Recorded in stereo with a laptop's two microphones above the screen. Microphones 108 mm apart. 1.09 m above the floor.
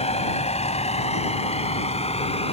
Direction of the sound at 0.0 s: 85° left.